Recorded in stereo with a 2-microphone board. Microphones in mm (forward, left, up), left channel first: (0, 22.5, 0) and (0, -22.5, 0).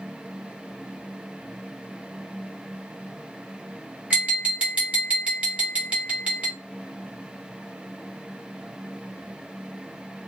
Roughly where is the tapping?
Right.